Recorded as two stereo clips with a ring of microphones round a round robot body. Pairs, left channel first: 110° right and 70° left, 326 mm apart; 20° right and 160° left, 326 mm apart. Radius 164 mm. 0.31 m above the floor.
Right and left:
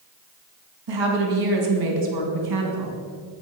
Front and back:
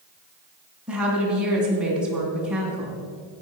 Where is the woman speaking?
70° left, 2.5 m.